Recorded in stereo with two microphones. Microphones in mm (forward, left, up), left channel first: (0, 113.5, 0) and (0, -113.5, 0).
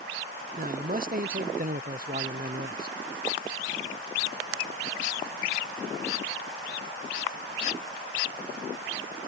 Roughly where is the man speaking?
Right.